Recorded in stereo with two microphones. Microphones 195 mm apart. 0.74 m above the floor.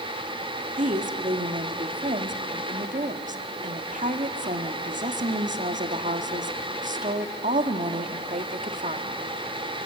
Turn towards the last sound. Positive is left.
turn(degrees=-40)  # may be behind; listen again after turning